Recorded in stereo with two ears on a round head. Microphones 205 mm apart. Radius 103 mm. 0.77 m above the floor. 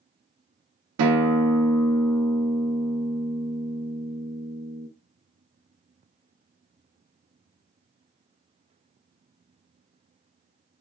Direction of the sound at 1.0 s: 75° right (ahead or behind).